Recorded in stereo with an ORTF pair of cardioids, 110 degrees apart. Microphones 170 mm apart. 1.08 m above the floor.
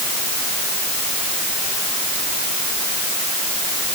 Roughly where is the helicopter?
I don't hear a helicopter.